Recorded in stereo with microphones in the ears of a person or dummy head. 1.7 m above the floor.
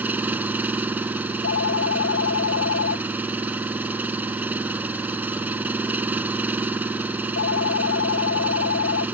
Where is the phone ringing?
65° left (ahead or behind).